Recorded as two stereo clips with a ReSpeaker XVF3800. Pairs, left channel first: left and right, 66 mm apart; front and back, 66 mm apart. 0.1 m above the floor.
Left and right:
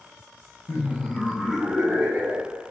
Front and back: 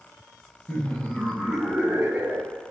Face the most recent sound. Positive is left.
turn(degrees=-130)